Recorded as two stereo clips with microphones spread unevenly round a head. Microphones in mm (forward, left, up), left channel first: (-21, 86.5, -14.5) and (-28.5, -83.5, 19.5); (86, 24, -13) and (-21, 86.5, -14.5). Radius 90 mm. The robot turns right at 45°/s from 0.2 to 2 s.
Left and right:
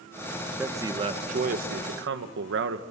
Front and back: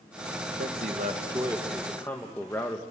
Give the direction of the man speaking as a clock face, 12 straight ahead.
6 o'clock.